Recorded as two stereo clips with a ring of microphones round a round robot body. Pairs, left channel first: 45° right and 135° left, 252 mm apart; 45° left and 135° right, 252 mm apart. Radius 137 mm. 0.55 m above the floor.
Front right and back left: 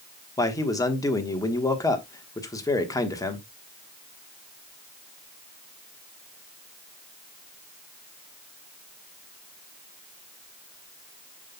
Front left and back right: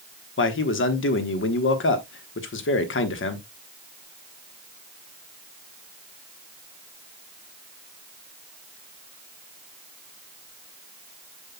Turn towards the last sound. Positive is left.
turn(degrees=30)